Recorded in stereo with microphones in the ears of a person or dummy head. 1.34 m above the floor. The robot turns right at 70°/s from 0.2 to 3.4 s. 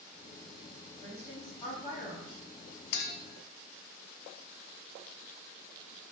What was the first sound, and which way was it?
A woman speaking, 25° right.